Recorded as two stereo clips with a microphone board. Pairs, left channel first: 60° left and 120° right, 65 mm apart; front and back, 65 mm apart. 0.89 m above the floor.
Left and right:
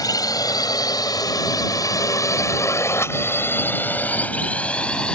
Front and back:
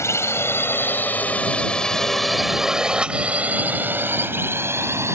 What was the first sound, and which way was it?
A drone, 45° left.